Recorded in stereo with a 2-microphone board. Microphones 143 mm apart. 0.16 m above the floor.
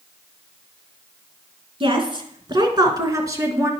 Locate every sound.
1.8 s a woman speaking: 40° right (ahead or behind), 2.0 m; by 3.7 s 20° right (ahead or behind), 2 m